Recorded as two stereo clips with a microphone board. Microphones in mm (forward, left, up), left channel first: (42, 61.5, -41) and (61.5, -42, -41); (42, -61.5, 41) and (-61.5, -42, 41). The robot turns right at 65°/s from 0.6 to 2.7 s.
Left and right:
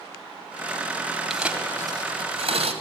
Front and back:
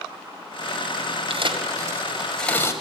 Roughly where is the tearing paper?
Behind.